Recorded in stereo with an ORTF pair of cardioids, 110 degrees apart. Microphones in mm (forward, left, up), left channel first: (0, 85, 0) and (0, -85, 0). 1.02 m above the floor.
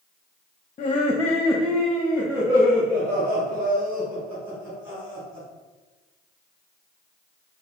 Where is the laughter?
35° left, 0.6 m; by 5.5 s 30° right, 3.5 m.